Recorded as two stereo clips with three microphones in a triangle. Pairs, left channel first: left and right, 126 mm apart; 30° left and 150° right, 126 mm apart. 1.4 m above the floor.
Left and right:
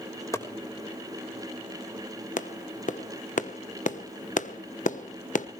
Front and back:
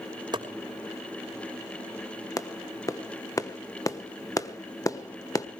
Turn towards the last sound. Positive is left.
turn(degrees=95)